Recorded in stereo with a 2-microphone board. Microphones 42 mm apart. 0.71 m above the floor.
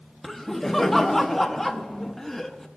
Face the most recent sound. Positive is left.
turn(degrees=5)  # may be behind; listen again after turning